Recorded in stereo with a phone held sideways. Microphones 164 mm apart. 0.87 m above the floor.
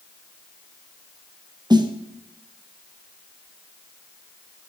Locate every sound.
1.7 s a snare drum: 25° right (ahead or behind), 0.7 m